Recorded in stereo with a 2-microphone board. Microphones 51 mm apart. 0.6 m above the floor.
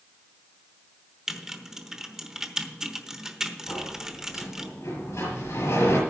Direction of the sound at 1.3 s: 10° right (ahead or behind).